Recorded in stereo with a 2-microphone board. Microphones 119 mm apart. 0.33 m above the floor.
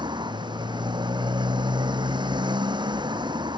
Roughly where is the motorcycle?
Right.